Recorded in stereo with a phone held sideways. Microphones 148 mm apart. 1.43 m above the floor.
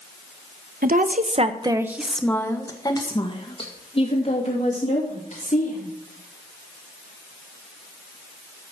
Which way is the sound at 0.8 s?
70° right (ahead or behind).